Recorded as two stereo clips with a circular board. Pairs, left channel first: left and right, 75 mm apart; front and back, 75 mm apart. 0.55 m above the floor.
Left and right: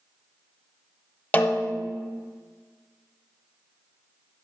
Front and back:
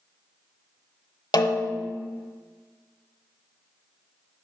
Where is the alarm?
No alarm in this recording.